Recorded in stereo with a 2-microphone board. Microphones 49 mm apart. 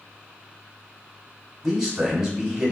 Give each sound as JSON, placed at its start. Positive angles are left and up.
{"t": 1.6, "sound": "a man speaking", "side_deg": -5, "distance_m": 1.2}